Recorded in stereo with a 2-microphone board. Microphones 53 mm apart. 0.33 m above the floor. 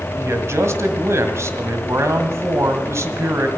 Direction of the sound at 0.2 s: 60° right (ahead or behind).